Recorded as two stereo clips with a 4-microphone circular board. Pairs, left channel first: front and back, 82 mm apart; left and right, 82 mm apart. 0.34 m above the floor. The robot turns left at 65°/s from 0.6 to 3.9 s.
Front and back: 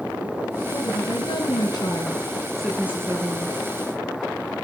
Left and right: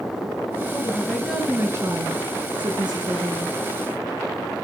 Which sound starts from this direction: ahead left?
A woman speaking, at 0.7 s.